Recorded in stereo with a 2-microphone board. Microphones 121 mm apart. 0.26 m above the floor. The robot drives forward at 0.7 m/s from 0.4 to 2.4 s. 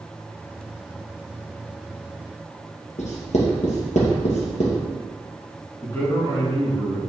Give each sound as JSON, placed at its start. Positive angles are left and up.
{"t": 3.0, "sound": "writing", "side_deg": 80, "distance_m": 2.0}
{"t": 5.8, "sound": "a man speaking", "side_deg": 25, "distance_m": 3.0}